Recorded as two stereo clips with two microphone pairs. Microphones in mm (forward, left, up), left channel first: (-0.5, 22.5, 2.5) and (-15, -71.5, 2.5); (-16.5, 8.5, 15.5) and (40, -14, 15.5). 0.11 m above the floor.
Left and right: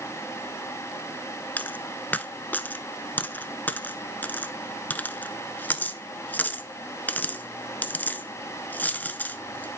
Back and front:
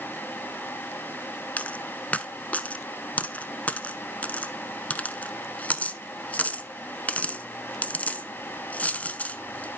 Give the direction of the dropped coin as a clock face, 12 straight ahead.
8 o'clock.